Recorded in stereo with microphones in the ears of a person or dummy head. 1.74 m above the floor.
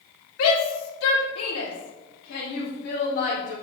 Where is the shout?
90° left, 2.5 m; by 3.5 s 45° left (ahead or behind), 3.5 m.